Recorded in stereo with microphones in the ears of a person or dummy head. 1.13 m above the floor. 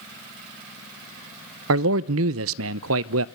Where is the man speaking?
70° right (ahead or behind), 0.6 m.